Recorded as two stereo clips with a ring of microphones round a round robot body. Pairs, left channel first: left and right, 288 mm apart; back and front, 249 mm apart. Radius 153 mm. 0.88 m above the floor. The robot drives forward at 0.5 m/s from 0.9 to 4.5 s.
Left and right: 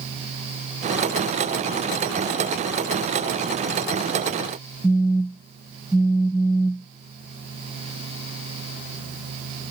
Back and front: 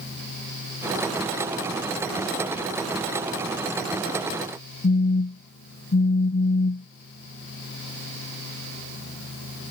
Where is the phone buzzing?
Straight behind.